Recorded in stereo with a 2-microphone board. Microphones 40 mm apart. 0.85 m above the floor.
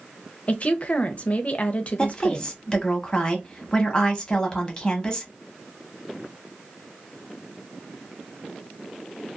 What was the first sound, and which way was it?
A woman speaking, 35° left (ahead or behind).